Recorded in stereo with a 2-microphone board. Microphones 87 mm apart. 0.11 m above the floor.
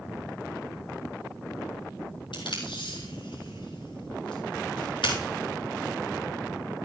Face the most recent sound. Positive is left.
turn(degrees=80)